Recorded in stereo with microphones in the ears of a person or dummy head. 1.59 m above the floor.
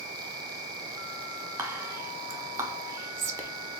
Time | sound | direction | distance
1.6 | whispering | 15° right (ahead or behind) | 0.7 m